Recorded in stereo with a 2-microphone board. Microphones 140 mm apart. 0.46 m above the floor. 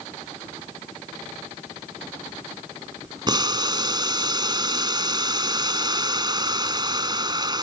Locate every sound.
3.3 s boiling: 30° right (ahead or behind)